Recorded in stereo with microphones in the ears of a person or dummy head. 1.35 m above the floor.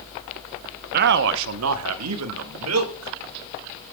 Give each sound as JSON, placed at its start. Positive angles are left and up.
{"t": 0.9, "sound": "a man speaking", "side_deg": -50, "distance_m": 0.7}